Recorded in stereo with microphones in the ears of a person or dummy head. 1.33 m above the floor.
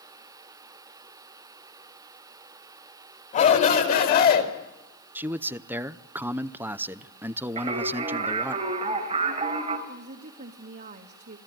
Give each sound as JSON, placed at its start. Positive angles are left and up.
{"t": 3.3, "sound": "a shout", "side_deg": 40, "distance_m": 4.5}
{"t": 5.2, "sound": "a man speaking", "side_deg": -10, "distance_m": 0.5}
{"t": 7.6, "sound": "singing", "side_deg": -30, "distance_m": 4.0}
{"t": 9.9, "sound": "a woman speaking", "side_deg": -50, "distance_m": 1.8}